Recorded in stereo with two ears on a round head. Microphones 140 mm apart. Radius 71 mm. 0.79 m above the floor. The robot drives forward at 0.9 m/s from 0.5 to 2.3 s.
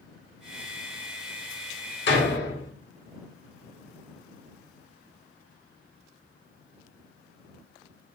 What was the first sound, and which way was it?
A door slam, 75° left (ahead or behind).